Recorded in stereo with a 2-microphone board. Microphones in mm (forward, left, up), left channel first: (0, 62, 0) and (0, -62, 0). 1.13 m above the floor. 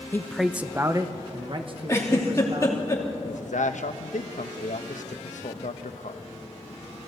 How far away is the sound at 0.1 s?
About 0.7 m.